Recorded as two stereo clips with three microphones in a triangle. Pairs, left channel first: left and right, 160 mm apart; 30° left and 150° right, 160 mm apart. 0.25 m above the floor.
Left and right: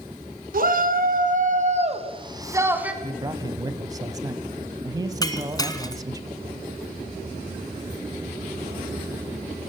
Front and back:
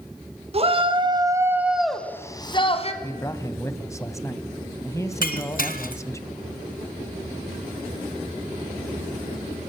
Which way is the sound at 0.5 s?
105° right.